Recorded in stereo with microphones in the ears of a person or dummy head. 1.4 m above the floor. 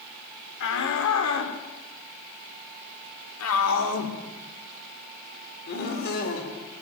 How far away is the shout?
About 4 m.